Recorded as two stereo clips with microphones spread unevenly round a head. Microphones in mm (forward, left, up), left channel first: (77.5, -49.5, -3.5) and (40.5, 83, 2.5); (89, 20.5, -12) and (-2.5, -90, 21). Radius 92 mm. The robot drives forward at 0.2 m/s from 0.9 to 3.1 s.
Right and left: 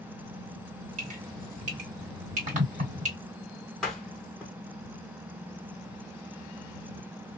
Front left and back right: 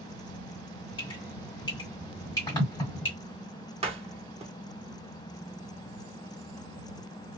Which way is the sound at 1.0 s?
120° left.